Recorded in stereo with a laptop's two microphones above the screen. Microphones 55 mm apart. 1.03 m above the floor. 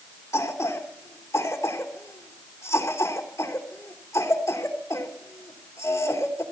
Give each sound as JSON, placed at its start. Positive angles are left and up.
{"t": 0.3, "sound": "a cough", "side_deg": 70, "distance_m": 3.0}